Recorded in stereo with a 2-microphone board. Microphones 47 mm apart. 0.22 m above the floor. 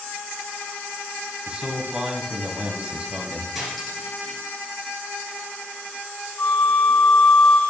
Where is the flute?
40° left (ahead or behind), 1.2 m.